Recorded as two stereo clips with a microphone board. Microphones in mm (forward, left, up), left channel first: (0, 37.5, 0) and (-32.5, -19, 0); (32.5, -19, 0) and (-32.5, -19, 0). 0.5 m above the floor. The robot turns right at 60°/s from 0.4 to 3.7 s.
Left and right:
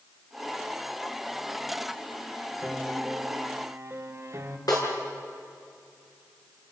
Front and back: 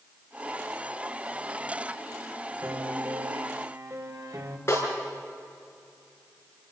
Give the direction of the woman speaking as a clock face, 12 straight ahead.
No woman speaking in this recording.